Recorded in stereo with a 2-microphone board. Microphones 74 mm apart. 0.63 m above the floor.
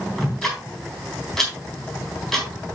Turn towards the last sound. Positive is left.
turn(degrees=5)  # may be behind; listen again after turning